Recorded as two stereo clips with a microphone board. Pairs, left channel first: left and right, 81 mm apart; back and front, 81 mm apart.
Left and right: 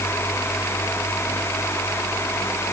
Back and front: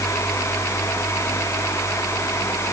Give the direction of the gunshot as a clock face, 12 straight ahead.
No gunshot in this recording.